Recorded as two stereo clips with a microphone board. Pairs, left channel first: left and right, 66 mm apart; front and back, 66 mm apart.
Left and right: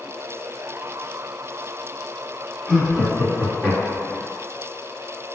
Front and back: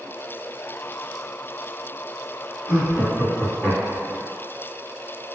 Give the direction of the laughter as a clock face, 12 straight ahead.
11 o'clock.